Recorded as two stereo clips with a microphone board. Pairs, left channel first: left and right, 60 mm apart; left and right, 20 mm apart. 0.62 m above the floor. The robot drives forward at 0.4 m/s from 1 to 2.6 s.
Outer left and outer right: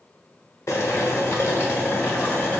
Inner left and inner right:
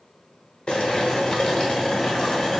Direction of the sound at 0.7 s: 55° left (ahead or behind).